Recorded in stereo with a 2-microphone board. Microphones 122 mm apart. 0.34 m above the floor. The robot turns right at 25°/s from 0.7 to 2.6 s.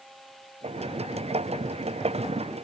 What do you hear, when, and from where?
Only background noise.